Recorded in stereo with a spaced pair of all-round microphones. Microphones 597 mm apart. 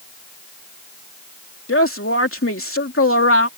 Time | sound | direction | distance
1.7 | a woman speaking | 20° left (ahead or behind) | ?